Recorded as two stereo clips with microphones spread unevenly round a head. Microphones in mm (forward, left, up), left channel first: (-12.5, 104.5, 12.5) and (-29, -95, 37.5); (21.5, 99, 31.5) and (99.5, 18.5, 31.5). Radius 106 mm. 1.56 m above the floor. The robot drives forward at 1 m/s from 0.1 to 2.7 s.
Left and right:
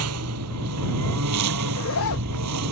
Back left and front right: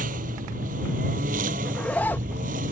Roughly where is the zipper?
Ahead left.